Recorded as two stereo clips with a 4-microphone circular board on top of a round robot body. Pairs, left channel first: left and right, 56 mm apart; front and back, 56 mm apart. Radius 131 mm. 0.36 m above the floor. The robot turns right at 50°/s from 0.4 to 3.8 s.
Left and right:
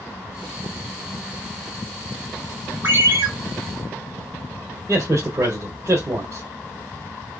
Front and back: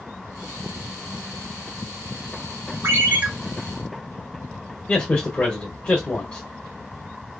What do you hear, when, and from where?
2.8 s a ringtone: 135° right, 1.7 m; by 3.3 s 115° right, 1.7 m
4.9 s a man speaking: 70° right, 1.9 m